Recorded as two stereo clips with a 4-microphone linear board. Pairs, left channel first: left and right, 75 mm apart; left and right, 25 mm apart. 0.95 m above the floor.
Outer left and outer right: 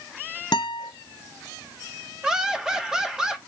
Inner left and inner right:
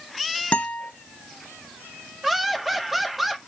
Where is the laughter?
10° right (ahead or behind), 2 m.